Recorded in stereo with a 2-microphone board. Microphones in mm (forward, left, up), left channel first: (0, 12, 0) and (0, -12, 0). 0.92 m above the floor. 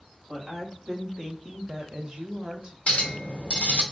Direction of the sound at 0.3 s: 15° right (ahead or behind).